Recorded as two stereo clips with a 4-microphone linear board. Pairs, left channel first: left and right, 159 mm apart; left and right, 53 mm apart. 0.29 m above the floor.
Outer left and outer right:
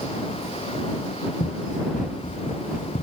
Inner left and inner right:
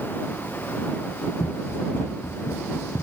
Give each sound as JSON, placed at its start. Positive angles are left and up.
{"t": 1.4, "sound": "running footsteps", "side_deg": 50}